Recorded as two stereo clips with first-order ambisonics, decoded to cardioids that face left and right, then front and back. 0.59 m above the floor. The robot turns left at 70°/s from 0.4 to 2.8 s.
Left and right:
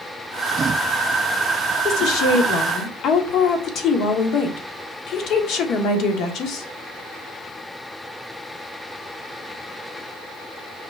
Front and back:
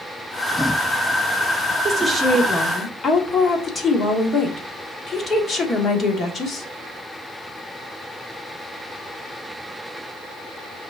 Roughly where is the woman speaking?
Behind left.